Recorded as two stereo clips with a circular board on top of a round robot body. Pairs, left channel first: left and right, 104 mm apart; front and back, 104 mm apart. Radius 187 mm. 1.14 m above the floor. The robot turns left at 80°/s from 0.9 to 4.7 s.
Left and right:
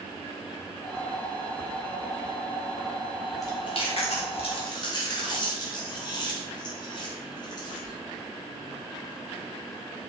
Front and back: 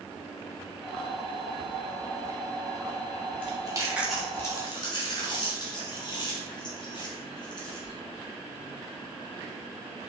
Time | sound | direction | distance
3.4 | chewing | 150° left | 2.5 m